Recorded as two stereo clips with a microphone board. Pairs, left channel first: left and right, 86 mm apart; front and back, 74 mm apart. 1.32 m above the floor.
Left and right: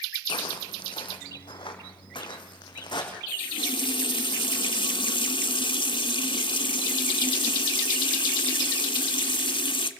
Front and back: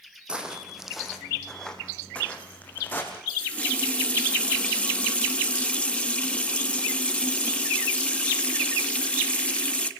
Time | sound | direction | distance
0.3 | footsteps | 105° left | 3.5 m
3.3 | a running tap | 75° left | 1.5 m